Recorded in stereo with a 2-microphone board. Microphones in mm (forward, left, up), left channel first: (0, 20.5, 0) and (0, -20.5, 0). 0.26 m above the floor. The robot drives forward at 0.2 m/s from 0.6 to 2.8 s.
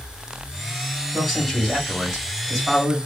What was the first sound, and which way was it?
A man speaking, 5° right (ahead or behind).